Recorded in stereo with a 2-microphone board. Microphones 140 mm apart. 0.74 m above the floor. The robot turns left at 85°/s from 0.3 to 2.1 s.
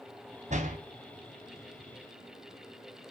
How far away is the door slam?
About 3.5 m.